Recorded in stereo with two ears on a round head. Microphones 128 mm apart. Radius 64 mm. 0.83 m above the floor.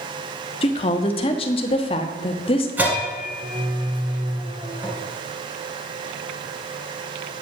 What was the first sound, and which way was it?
A woman speaking, 40° left (ahead or behind).